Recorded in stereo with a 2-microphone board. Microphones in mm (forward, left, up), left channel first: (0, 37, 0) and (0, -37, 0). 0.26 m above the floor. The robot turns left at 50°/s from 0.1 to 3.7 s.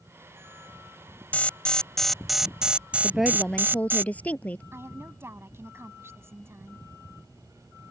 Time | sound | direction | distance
1.3 | an alarm | 45° left | ?
3.0 | a woman speaking | 165° right | ?
4.7 | a woman speaking | 35° right (ahead or behind) | ?